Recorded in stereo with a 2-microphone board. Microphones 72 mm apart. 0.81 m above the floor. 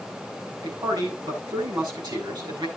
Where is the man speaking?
80° right, 7.5 m.